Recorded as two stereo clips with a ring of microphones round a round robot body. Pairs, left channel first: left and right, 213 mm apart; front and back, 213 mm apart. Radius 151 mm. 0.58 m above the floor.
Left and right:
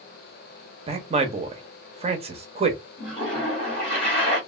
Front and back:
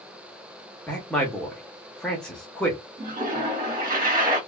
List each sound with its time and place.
0.9 s a man speaking: 80° right, 0.6 m
3.0 s a toilet flushing: 150° left, 1.7 m